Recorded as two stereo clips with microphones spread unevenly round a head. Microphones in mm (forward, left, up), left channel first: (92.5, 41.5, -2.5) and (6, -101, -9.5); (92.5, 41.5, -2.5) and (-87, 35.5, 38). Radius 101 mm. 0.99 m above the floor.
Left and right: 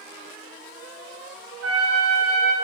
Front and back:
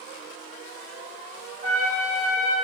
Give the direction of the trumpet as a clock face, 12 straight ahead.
4 o'clock.